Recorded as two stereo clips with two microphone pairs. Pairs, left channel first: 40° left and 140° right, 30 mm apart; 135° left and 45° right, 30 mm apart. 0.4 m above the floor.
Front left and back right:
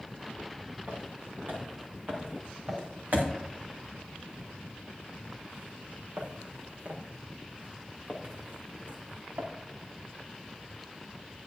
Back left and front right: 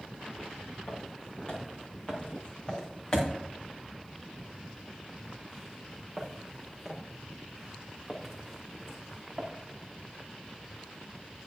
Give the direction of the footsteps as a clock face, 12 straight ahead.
6 o'clock.